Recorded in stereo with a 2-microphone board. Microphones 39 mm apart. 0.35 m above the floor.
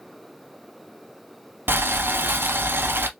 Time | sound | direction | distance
1.7 | boiling | 70° right (ahead or behind) | 0.5 m